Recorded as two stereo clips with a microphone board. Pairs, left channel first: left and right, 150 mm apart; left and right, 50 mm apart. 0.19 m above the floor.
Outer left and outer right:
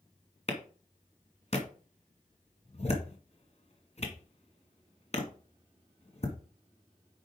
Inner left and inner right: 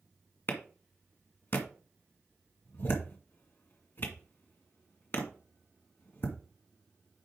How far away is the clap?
About 1.9 m.